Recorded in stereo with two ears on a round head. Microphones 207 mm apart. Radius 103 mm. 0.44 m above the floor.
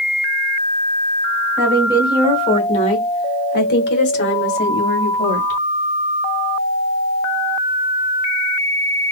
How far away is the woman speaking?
About 1.7 m.